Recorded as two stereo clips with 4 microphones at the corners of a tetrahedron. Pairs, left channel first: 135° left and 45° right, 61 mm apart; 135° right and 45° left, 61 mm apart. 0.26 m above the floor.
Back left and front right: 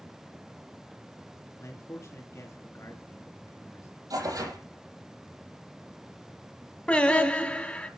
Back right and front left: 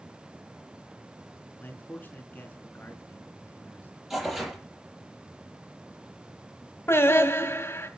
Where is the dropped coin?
I don't hear a dropped coin.